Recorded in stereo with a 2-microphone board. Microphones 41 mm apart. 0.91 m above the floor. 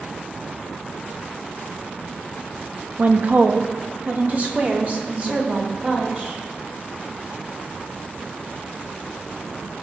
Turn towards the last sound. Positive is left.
turn(degrees=-35)  # may be behind; listen again after turning